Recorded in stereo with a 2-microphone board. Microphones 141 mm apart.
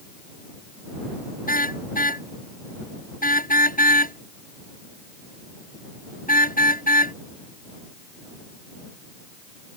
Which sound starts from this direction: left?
A car horn, at 1.5 s.